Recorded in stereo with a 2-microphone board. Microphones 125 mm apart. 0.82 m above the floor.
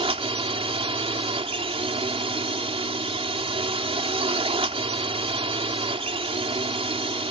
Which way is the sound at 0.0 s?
45° right (ahead or behind).